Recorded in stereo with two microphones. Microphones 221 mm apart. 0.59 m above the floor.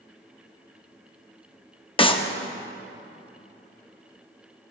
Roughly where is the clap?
Left.